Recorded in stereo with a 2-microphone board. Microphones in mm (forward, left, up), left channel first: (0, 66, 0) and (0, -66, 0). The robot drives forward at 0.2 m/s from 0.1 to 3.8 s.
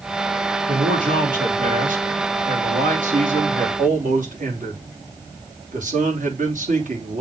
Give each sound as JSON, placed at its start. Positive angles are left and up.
{"t": 0.7, "sound": "a man speaking", "side_deg": -85, "distance_m": 3.5}